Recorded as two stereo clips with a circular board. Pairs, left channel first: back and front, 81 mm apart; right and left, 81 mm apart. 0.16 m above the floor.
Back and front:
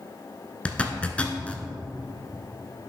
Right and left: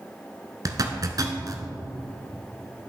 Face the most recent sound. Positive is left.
turn(degrees=110)